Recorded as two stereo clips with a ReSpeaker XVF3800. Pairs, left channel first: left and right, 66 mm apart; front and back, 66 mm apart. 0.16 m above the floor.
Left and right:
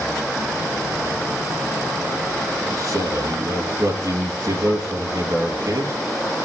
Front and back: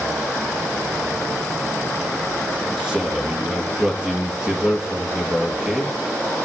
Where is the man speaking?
105° right, 3 m.